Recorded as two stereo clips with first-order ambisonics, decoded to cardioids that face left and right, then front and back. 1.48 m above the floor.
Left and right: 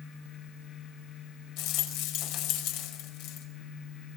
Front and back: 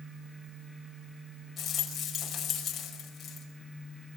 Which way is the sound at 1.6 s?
70° left.